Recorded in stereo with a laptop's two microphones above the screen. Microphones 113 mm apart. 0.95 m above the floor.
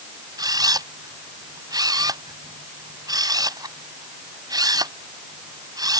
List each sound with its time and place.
0.4 s a camera shutter: 35° right (ahead or behind)